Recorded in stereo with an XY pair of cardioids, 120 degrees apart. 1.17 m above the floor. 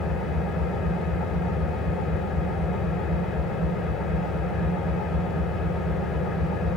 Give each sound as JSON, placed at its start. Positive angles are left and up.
{"t": 0.0, "sound": "an engine running", "azimuth_deg": 60, "distance_m": 6.0}